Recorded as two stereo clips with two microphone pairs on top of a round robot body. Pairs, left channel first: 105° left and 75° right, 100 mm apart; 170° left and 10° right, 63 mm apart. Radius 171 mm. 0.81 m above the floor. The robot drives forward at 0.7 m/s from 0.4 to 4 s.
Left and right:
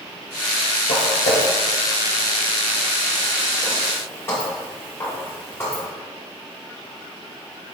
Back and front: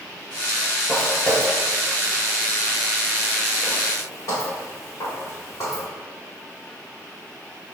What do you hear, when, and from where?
0.9 s footsteps: 90° left, 1.0 m; by 5.8 s 175° left, 5 m